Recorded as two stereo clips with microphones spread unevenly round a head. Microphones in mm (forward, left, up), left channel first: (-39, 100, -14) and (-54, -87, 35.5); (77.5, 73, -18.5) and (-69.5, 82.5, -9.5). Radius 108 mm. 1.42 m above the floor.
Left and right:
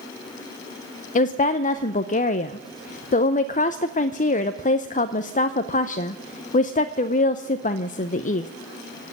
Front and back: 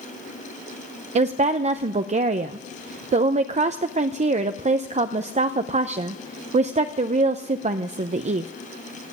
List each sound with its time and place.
1.1 s a woman speaking: 140° left, 0.7 m